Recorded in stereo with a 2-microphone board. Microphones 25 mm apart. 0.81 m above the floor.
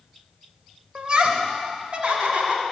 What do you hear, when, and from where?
0.9 s laughter: 40° right (ahead or behind), 0.9 m; by 2.6 s 60° right (ahead or behind), 2.0 m